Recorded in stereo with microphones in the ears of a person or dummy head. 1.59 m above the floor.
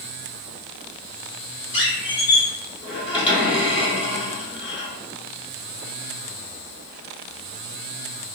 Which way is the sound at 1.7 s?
35° left (ahead or behind).